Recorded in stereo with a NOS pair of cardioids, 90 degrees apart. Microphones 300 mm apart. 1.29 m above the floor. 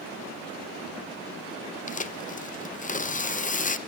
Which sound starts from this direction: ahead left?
Tearing paper, at 1.9 s.